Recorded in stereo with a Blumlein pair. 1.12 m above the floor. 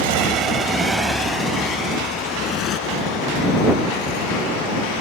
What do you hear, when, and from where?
0.0 s a motorcycle: 50° right; by 5.0 s 40° left